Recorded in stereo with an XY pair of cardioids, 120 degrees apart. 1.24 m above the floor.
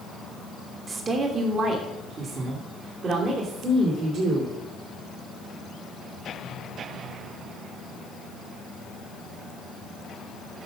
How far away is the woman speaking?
About 1.5 m.